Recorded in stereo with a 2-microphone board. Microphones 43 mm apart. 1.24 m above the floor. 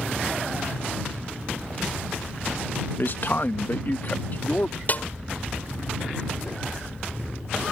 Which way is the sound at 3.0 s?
55° left (ahead or behind).